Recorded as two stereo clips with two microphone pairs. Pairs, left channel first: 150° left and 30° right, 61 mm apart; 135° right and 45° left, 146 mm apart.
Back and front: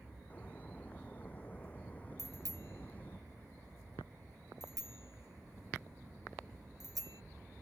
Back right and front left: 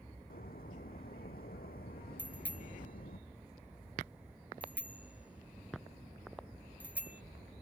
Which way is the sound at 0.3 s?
150° right.